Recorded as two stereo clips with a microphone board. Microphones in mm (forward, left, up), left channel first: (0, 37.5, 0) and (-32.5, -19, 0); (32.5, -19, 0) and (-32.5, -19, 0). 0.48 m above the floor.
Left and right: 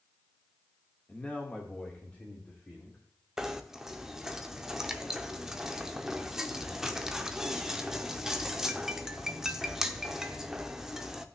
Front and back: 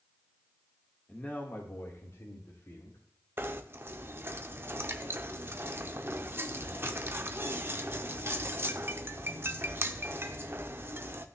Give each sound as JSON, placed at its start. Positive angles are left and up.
{"t": 1.1, "sound": "a man speaking", "azimuth_deg": 35, "distance_m": 1.2}
{"t": 3.4, "sound": "knocking", "azimuth_deg": 160, "distance_m": 0.7}